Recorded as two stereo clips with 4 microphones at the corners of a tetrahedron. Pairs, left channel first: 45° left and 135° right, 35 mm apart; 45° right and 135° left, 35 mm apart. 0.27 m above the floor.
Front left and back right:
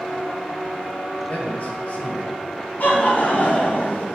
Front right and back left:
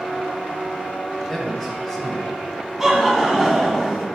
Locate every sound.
1.3 s a man speaking: 35° left, 1.8 m; by 2.4 s 30° left, 1.4 m
2.8 s laughter: 55° left, 1.8 m